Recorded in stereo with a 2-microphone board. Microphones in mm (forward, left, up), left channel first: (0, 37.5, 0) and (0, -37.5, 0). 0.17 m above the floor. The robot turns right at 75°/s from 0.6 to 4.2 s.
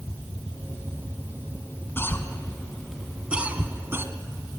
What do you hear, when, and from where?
2.0 s a cough: 30° left (ahead or behind), 1.3 m; by 4.0 s 30° right (ahead or behind), 1.3 m